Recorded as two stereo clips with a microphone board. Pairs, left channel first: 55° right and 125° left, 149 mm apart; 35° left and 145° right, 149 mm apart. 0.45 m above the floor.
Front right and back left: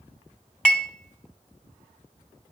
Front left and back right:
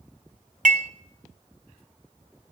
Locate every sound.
0.7 s dishes clattering: 140° right, 0.9 m